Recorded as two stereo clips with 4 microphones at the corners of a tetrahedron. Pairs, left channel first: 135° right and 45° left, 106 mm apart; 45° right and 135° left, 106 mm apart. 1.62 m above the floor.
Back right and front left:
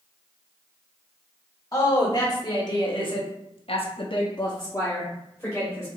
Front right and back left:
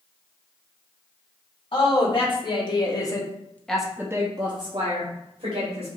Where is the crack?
No crack in this recording.